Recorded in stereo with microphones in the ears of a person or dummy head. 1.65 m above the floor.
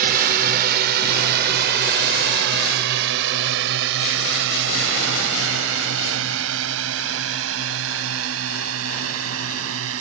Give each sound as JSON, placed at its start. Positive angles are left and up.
{"t": 0.0, "sound": "a drone", "side_deg": -55}